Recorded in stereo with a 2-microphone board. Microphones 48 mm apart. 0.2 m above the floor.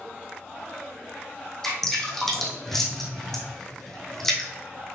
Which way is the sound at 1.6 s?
5° left (ahead or behind).